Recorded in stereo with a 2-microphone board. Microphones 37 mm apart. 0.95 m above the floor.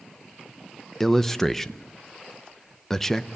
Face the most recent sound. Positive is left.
turn(degrees=5)  # may be behind; listen again after turning